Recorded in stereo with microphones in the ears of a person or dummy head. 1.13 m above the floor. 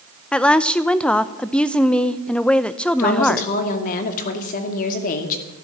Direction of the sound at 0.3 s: 5° left (ahead or behind).